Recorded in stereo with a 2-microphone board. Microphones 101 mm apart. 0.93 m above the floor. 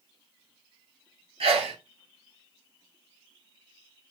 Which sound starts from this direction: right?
A sneeze, at 1.4 s.